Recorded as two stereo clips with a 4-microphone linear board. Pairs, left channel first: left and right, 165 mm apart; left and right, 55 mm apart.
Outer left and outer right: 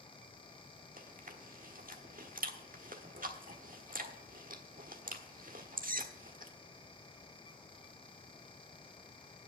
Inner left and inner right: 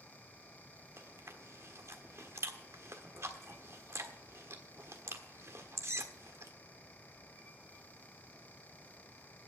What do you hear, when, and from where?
1.0 s chewing: 55° right (ahead or behind), 1.3 m